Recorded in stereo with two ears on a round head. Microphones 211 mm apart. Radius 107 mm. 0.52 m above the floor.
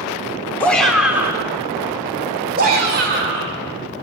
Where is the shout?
5° left (ahead or behind), 1.7 m; by 3.6 s 50° right (ahead or behind), 3 m.